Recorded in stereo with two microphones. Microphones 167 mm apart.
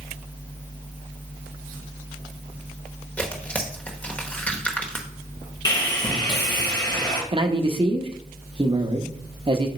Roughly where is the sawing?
Left.